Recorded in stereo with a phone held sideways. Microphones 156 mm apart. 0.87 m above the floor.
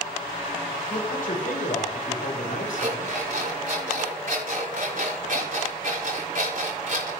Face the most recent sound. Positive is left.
turn(degrees=-70)  # may be behind; listen again after turning